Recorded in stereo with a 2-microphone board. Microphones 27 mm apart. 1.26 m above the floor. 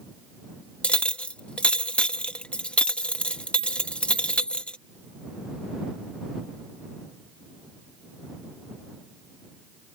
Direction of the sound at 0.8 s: 50° left (ahead or behind).